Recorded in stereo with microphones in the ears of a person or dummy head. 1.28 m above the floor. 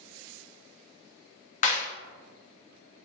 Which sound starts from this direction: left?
A clap, at 1.6 s.